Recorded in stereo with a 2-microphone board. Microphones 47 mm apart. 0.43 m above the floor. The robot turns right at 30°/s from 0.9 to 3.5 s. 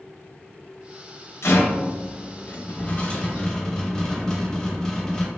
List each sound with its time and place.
1.4 s a rattle: 100° left, 0.5 m; by 5.3 s 165° left, 0.5 m